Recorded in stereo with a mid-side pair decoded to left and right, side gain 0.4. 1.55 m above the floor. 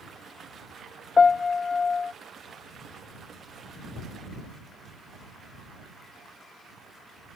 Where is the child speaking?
No child speaking in this recording.